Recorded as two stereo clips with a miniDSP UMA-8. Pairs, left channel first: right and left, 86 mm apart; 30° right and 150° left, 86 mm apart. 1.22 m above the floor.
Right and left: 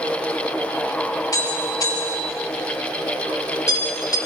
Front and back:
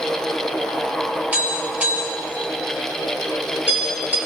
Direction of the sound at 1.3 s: 140° right.